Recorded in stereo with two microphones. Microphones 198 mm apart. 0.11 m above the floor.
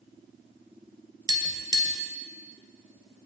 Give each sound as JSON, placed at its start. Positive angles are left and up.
{"t": 1.3, "sound": "tapping", "side_deg": -20, "distance_m": 0.6}